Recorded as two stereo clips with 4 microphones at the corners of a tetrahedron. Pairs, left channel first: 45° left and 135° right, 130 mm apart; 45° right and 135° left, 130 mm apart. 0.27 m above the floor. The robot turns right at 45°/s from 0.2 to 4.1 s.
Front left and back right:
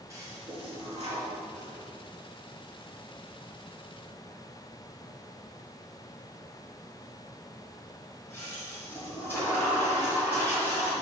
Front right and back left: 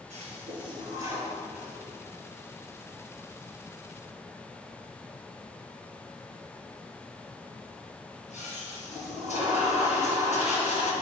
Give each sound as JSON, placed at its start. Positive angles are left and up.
{"t": 0.1, "sound": "a toilet flushing", "azimuth_deg": 155, "distance_m": 4.5}